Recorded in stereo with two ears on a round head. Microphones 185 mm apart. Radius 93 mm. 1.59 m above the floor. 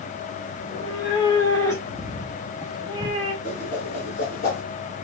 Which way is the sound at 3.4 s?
45° left (ahead or behind).